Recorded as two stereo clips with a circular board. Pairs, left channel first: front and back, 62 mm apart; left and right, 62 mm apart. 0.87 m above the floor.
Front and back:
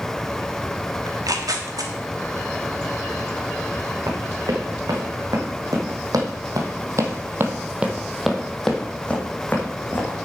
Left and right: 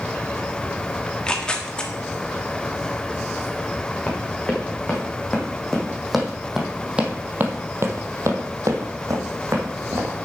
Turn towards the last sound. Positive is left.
turn(degrees=-55)